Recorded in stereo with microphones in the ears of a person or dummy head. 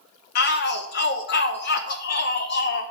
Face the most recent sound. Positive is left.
turn(degrees=50)  # may be behind; listen again after turning